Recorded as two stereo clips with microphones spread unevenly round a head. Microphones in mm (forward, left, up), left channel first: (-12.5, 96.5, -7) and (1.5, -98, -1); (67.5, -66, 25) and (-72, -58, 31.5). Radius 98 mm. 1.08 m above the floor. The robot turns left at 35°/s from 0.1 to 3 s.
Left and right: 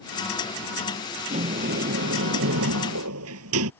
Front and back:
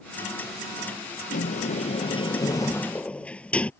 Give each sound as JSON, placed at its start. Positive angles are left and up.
{"t": 1.3, "sound": "a sliding door", "azimuth_deg": -25}